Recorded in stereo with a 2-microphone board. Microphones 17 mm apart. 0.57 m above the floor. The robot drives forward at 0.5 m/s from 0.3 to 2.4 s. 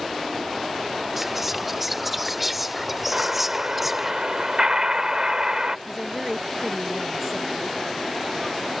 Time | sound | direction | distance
1.2 | whispering | 10° right (ahead or behind) | ?
3.1 | an explosion | 40° right (ahead or behind) | ?
5.9 | a woman speaking | 20° right (ahead or behind) | ?